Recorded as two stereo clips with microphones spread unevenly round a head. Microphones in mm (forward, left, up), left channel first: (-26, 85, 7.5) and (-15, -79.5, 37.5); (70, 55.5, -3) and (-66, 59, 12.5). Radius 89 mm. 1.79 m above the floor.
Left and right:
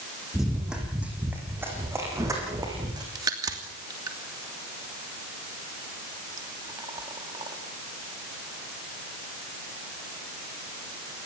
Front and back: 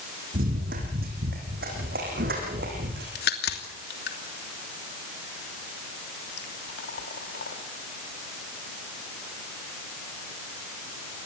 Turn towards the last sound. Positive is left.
turn(degrees=-20)